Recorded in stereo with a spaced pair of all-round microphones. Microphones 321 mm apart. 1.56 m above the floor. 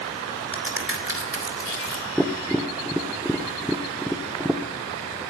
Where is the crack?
40° right (ahead or behind), 2.5 m.